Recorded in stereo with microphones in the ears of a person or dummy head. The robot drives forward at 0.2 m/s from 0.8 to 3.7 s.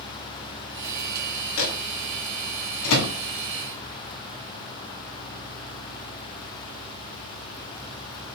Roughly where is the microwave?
Left.